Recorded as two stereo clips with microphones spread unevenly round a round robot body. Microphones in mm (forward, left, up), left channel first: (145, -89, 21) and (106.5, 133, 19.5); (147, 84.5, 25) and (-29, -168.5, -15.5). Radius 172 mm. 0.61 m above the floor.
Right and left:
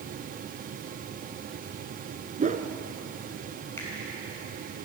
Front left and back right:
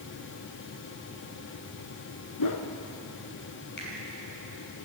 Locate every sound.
2.4 s a whoosh: 45° left, 1.4 m
3.8 s a finger snap: straight ahead, 7 m